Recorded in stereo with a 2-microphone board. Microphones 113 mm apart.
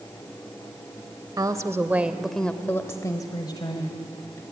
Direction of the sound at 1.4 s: 35° right (ahead or behind).